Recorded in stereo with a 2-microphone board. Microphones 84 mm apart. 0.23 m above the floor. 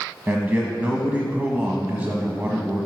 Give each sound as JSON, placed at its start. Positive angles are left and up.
{"t": 0.3, "sound": "a man speaking", "side_deg": -20, "distance_m": 1.2}